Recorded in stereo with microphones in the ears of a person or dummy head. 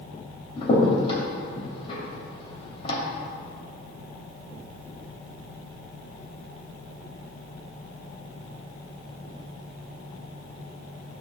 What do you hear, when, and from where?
0.6 s a crack: 40° left (ahead or behind), 2 m